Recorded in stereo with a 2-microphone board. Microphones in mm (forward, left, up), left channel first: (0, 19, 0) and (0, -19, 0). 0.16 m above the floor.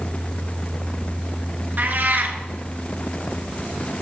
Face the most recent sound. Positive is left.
turn(degrees=-55)  # may be behind; listen again after turning